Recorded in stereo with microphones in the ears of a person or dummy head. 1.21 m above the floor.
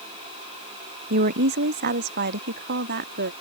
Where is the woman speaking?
45° right (ahead or behind); by 3.3 s 50° right (ahead or behind).